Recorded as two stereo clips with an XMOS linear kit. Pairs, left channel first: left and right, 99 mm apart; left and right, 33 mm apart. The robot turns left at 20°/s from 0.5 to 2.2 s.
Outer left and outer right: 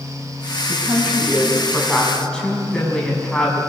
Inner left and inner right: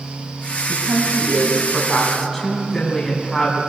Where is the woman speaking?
160° right, 5 m; by 3.6 s 170° left, 5 m.